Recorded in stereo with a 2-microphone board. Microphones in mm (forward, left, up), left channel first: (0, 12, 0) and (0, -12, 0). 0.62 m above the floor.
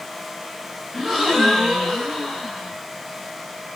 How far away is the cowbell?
I don't hear a cowbell.